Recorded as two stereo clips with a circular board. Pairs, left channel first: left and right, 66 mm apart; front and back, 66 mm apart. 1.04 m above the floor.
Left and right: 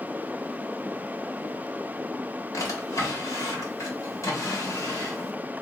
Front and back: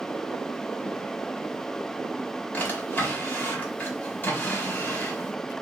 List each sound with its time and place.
2.5 s a drawer: 60° left, 1.5 m